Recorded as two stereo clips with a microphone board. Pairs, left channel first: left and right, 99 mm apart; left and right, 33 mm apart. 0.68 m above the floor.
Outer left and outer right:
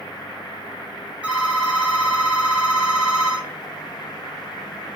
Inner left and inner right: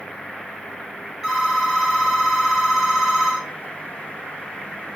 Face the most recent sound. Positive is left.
turn(degrees=-15)  # may be behind; listen again after turning